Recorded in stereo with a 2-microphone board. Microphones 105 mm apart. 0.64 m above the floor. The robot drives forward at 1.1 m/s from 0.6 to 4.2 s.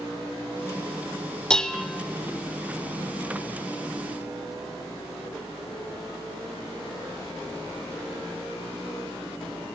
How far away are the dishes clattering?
About 1.1 m.